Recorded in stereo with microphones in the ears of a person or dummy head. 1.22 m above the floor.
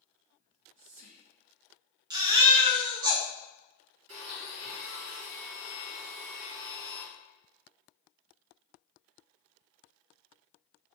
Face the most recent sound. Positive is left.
turn(degrees=-75)  # may be behind; listen again after turning